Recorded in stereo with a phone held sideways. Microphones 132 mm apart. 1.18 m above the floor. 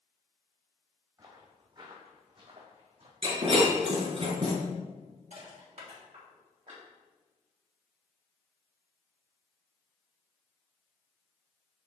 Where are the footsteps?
30° right (ahead or behind), 2.5 m; by 3.1 s 50° right (ahead or behind), 3 m.